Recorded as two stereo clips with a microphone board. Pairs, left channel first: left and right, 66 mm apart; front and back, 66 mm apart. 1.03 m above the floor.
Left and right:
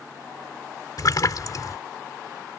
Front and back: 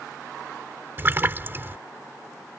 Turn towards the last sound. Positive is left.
turn(degrees=120)